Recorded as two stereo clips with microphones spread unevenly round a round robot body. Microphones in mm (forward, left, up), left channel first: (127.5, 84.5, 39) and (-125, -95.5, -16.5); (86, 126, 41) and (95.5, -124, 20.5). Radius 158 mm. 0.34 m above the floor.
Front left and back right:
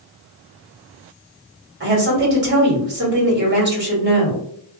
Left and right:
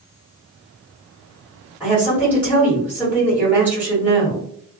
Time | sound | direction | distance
1.8 | a woman speaking | 165° right | 1.5 m